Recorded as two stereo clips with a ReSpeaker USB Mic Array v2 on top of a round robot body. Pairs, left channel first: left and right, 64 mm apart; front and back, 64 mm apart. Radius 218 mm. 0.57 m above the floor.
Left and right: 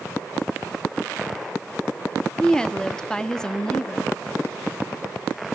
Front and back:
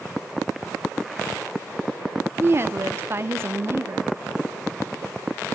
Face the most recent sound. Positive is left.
turn(degrees=165)